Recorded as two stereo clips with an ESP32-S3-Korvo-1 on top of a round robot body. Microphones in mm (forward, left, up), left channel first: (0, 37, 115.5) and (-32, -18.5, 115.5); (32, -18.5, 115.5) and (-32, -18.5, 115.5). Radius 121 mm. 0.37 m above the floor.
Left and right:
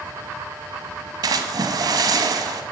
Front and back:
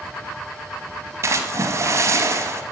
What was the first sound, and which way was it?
A splash, 140° right.